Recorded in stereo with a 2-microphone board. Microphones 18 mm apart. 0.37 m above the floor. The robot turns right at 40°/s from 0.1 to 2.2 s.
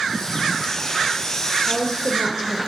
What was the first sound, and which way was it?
A woman speaking, 35° left (ahead or behind).